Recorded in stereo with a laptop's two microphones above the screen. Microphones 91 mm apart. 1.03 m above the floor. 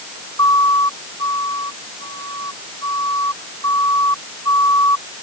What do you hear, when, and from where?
0.4 s a siren: 40° left (ahead or behind)